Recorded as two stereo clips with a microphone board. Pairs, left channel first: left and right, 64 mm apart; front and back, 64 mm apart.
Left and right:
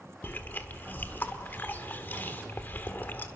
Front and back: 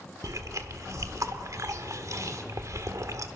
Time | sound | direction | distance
0.2 | chewing | 145° left | 1.1 m